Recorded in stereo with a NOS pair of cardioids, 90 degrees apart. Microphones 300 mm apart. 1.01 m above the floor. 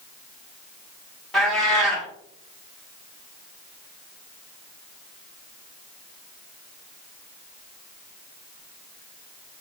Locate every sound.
1.3 s a cat meowing: straight ahead, 1.1 m